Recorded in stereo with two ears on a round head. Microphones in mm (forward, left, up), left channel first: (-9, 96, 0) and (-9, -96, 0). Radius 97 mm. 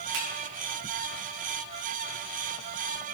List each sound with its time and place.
0.1 s a finger snap: 65° right (ahead or behind), 5 m